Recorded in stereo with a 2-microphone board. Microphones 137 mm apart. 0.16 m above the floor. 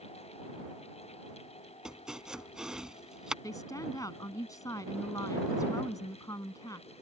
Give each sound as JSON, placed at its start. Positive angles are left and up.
{"t": 1.9, "sound": "chopping", "side_deg": -5}
{"t": 3.4, "sound": "a woman speaking", "side_deg": 25}